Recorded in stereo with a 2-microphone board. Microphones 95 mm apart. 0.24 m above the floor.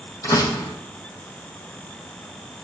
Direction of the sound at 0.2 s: 40° left (ahead or behind).